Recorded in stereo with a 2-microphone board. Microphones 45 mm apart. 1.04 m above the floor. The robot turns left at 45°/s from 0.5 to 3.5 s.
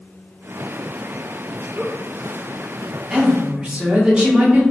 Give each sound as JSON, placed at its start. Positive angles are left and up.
{"t": 1.8, "sound": "a giggle", "side_deg": -10, "distance_m": 0.7}
{"t": 3.1, "sound": "a woman speaking", "side_deg": -15, "distance_m": 0.9}